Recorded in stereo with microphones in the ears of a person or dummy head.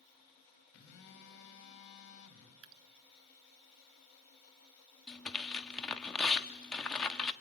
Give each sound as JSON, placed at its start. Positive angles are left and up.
{"t": 0.7, "sound": "a phone buzzing", "side_deg": 60, "distance_m": 4.0}
{"t": 2.6, "sound": "dripping", "side_deg": -75, "distance_m": 0.9}
{"t": 5.1, "sound": "tearing paper", "side_deg": 0, "distance_m": 1.1}